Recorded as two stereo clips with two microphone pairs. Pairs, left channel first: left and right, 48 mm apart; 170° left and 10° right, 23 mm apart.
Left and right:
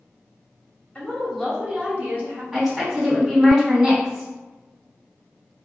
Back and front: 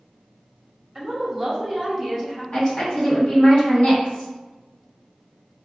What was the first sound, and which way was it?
A woman speaking, 70° left.